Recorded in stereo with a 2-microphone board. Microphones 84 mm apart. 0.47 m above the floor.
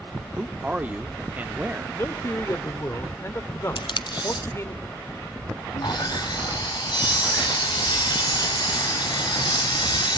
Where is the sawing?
60° left (ahead or behind), 3 m.